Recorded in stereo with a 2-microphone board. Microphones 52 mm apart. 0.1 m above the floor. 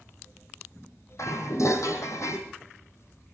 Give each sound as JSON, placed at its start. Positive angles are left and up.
{"t": 1.2, "sound": "dishes clattering", "side_deg": 70, "distance_m": 2.5}